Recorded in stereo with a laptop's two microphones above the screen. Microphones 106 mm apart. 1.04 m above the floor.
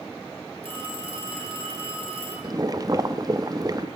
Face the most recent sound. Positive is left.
turn(degrees=-35)  # may be behind; listen again after turning